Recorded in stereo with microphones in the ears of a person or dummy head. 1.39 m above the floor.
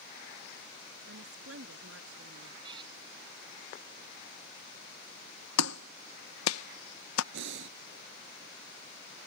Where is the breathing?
75° right (ahead or behind).